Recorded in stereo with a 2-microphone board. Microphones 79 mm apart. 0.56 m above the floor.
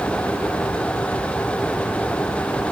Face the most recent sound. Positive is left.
No sound to turn to.